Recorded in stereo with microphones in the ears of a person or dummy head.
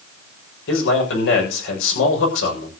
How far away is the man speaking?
About 7 m.